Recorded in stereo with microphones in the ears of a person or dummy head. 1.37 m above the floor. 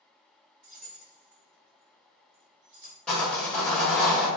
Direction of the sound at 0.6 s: 30° right (ahead or behind).